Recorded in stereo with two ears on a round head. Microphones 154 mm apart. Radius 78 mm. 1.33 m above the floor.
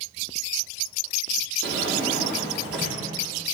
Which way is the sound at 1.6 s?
70° right (ahead or behind).